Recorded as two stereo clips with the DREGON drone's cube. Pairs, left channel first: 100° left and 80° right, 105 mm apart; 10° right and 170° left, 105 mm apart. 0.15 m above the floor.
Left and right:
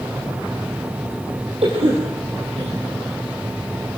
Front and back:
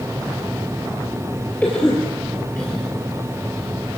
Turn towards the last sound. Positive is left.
turn(degrees=-85)